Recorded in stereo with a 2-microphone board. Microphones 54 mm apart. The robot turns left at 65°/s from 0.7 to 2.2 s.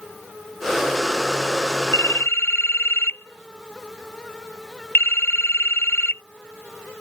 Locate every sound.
1.9 s a phone ringing: 65° left (ahead or behind); by 6.2 s 45° left (ahead or behind)